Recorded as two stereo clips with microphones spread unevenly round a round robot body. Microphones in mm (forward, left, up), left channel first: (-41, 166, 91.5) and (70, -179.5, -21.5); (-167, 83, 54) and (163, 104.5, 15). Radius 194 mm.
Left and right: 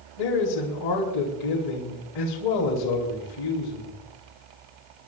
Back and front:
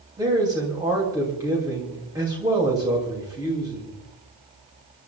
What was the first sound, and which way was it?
A man speaking, 80° left.